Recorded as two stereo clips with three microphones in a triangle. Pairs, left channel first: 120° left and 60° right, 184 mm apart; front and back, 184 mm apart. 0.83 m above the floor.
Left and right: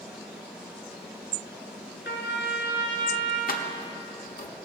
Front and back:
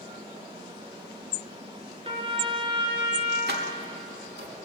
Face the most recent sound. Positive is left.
turn(degrees=155)